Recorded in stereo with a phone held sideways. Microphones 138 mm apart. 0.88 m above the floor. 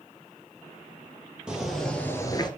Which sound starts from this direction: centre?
Footsteps, at 1.5 s.